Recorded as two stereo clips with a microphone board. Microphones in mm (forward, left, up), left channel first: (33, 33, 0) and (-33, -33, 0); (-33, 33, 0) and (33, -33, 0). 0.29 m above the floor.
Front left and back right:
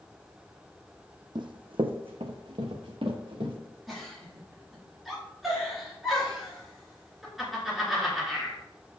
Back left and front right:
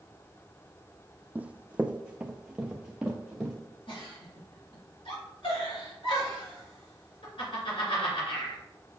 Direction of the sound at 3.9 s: 135° left.